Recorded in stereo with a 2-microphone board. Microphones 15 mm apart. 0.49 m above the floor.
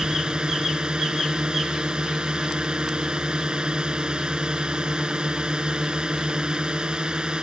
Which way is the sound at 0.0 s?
70° right (ahead or behind).